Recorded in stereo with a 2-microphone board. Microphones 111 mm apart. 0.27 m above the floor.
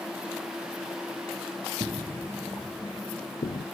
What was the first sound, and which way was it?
Footsteps, 45° right (ahead or behind).